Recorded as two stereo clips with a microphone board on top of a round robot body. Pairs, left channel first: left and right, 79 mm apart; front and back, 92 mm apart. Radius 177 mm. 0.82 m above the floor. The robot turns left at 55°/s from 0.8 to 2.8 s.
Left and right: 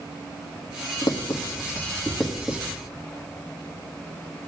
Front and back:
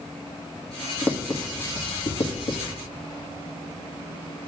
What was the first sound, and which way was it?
Writing, 70° left.